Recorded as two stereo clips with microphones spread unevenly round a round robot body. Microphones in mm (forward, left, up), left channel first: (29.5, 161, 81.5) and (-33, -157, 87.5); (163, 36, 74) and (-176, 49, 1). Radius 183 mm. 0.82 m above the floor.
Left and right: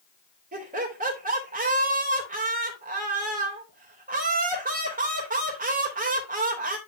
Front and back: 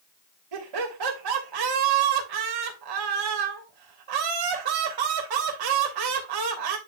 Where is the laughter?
165° right, 3 m.